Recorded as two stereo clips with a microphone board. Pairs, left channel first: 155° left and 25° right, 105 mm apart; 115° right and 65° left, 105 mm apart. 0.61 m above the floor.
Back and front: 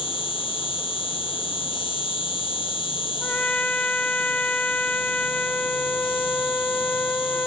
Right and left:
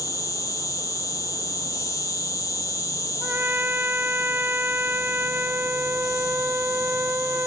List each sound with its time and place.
0.0 s an insect: 170° right
3.2 s a trumpet: 100° left